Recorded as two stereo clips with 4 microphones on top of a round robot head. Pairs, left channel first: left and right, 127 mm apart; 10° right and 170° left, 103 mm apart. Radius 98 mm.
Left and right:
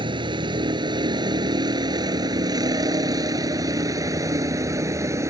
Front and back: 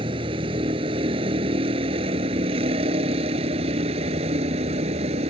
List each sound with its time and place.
0.0 s a vehicle: 140° right; by 5.3 s 155° right